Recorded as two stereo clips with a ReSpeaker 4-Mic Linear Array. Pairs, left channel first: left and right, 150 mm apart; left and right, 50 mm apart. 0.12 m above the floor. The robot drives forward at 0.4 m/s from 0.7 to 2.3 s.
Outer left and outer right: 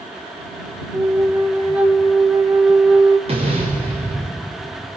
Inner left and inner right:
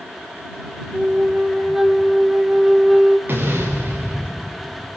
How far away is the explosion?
About 7 m.